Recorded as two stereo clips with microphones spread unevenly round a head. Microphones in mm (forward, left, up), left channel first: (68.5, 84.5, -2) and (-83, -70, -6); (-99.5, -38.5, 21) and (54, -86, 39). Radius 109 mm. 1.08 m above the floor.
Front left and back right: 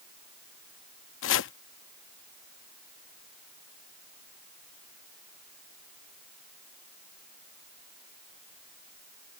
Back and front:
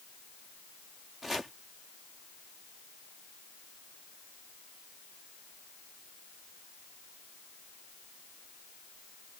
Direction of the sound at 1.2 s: 70° left.